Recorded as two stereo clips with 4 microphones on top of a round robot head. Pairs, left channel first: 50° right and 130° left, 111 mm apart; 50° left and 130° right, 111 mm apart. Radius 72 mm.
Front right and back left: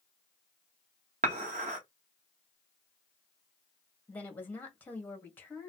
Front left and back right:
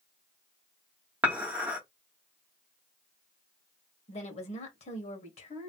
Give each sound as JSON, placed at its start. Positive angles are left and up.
{"t": 1.2, "sound": "dishes clattering", "azimuth_deg": 155, "distance_m": 1.1}
{"t": 4.1, "sound": "a woman speaking", "azimuth_deg": 25, "distance_m": 1.3}